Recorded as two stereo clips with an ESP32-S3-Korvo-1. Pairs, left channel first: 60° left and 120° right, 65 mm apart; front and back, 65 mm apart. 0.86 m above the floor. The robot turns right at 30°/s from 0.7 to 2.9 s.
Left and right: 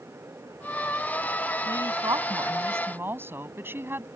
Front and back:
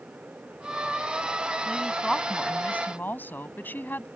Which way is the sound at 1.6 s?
100° right.